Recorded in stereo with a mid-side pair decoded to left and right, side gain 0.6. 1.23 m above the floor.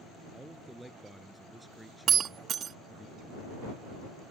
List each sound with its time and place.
0.3 s a man speaking: 5° right
2.1 s breaking glass: 45° right